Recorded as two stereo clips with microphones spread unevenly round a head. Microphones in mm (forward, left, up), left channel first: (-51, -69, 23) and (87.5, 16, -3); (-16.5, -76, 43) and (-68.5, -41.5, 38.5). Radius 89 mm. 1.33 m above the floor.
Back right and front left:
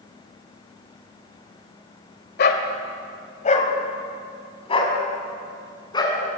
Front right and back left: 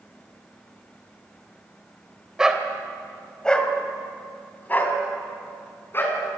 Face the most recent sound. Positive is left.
turn(degrees=-85)